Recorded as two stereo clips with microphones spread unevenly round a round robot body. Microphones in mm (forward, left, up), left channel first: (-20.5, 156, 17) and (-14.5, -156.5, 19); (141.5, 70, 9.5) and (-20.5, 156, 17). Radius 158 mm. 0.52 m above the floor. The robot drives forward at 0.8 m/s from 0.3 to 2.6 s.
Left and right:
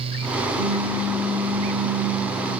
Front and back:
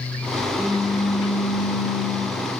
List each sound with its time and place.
0.6 s a pop: 30° right, 4 m; by 2.6 s 50° right, 3 m